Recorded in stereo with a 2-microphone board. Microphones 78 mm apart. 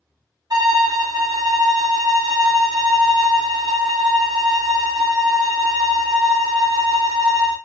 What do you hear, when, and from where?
0.5 s a violin: 50° right (ahead or behind), 1.2 m